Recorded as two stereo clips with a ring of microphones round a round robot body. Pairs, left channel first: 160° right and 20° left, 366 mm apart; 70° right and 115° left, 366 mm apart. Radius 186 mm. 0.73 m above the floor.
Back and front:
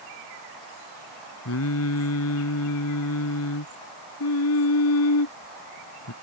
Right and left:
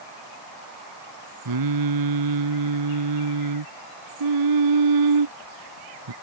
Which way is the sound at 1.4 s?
150° left.